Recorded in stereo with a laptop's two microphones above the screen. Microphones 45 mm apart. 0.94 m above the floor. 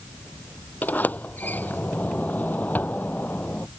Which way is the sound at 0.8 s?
40° left (ahead or behind).